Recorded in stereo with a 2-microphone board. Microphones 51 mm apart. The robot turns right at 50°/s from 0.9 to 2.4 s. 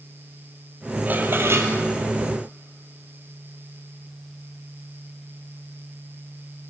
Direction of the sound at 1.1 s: 145° right.